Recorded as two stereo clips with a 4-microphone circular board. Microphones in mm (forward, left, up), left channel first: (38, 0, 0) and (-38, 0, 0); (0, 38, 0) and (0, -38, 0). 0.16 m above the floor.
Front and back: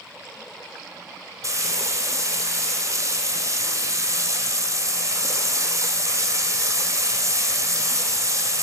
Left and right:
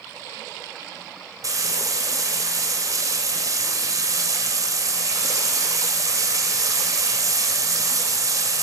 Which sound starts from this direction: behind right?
Frying, at 1.4 s.